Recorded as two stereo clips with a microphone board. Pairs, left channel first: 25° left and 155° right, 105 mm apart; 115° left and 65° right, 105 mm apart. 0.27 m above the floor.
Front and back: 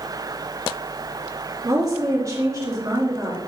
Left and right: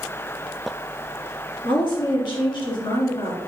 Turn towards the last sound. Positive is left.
turn(degrees=145)